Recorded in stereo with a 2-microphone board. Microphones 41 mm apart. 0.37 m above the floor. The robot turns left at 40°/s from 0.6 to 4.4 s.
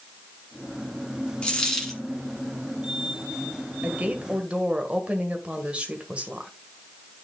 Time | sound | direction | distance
1.4 | a dropped coin | 25° left (ahead or behind) | 2 m
3.8 | a woman speaking | 45° right (ahead or behind) | 1.5 m